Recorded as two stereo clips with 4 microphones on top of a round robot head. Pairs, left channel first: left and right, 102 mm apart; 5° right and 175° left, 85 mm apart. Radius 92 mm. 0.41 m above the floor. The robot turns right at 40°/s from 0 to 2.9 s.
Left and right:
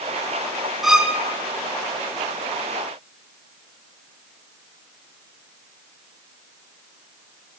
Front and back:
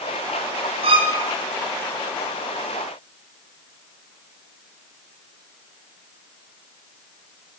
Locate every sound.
0.8 s a violin: straight behind, 3.5 m; by 1.2 s 165° right, 3.5 m